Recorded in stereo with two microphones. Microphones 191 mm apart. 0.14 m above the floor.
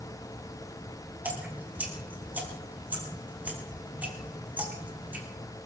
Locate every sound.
1.2 s dripping: 10° right (ahead or behind), 3.5 m